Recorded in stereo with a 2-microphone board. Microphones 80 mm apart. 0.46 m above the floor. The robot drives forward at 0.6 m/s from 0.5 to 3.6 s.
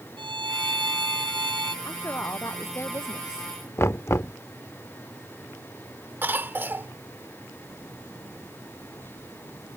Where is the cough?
25° right (ahead or behind).